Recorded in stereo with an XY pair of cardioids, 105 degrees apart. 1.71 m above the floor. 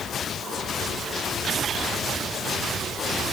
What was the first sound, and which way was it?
Only background noise.